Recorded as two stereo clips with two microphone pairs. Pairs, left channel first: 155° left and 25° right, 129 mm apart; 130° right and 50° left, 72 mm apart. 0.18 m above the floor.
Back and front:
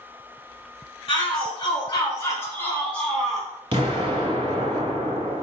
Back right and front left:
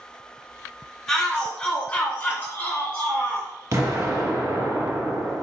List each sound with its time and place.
1.1 s a shout: 150° left, 1.5 m; by 3.5 s 110° right, 1.3 m
3.7 s an explosion: 15° left, 1.5 m